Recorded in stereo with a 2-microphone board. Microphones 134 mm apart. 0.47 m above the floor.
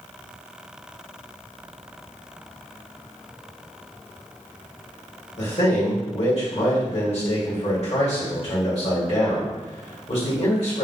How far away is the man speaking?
About 1.6 m.